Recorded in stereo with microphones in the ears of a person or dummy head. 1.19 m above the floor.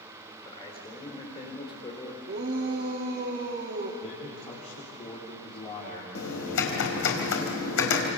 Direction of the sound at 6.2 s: 75° left (ahead or behind).